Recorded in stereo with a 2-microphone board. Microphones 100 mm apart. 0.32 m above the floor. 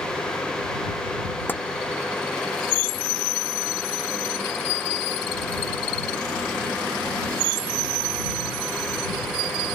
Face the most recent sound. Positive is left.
turn(degrees=20)  # may be behind; listen again after turning